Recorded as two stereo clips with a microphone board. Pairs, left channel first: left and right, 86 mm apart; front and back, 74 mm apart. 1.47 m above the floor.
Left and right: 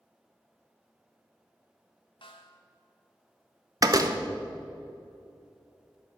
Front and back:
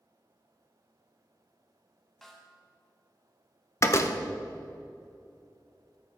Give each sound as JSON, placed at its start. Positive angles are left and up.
{"t": 2.2, "sound": "a snare drum", "azimuth_deg": 85, "distance_m": 1.6}
{"t": 3.8, "sound": "a door slam", "azimuth_deg": -50, "distance_m": 0.9}